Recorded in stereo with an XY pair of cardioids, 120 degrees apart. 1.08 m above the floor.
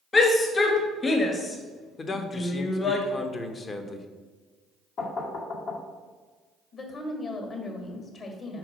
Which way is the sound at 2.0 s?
35° left.